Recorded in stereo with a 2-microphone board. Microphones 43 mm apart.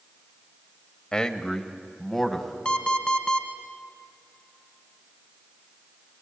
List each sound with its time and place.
1.1 s a man speaking: 20° left (ahead or behind), 1.2 m; by 2.5 s 5° left (ahead or behind), 2 m
2.6 s an alarm clock: 25° left (ahead or behind), 1.6 m